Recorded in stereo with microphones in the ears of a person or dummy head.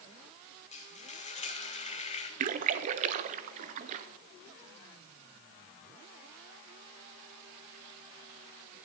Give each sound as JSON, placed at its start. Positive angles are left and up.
{"t": 0.7, "sound": "frying", "side_deg": 30, "distance_m": 1.2}
{"t": 2.4, "sound": "a splash", "side_deg": -45, "distance_m": 0.7}